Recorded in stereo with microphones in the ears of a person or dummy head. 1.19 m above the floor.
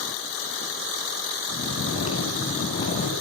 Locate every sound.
1.5 s snoring: 35° left (ahead or behind), 6.5 m